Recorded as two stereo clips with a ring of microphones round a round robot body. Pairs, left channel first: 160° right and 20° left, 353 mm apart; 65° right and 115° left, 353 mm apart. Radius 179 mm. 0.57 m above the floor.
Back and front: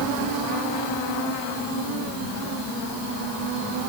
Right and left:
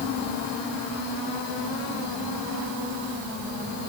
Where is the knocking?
No knocking in this recording.